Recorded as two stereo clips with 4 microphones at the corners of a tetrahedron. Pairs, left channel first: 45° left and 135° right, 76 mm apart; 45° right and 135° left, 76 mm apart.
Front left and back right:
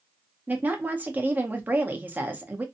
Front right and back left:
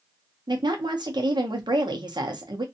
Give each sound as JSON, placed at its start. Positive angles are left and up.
{"t": 0.5, "sound": "a woman speaking", "azimuth_deg": 155, "distance_m": 0.7}